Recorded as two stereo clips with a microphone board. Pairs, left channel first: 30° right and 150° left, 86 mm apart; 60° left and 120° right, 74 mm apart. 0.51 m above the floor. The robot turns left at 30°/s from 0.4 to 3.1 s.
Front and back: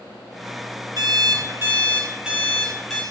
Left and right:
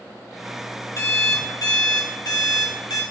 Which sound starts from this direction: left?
An alarm clock, at 1.0 s.